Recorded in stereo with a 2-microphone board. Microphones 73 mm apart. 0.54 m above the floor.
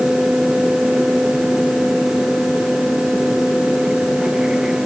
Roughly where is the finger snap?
No finger snap in this recording.